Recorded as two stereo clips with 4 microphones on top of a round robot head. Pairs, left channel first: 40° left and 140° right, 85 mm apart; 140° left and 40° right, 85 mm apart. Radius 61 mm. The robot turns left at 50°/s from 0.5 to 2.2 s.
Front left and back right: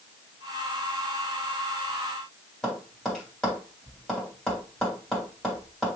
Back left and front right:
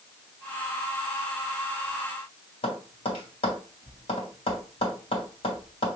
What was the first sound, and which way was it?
Tapping, 125° left.